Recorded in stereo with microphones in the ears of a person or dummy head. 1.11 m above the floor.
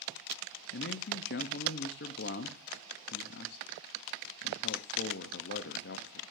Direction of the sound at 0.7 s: 50° left (ahead or behind).